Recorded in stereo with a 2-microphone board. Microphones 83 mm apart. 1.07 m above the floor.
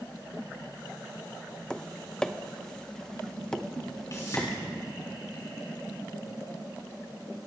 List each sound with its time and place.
1.7 s tapping: 10° left (ahead or behind), 0.7 m
4.1 s a whoosh: 45° left (ahead or behind), 5.5 m